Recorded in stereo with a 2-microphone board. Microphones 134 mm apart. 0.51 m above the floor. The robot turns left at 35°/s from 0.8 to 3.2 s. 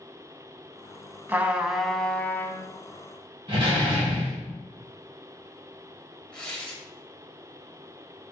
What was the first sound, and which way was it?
A trumpet, 160° right.